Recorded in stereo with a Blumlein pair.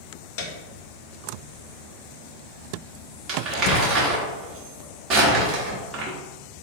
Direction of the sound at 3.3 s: 35° right.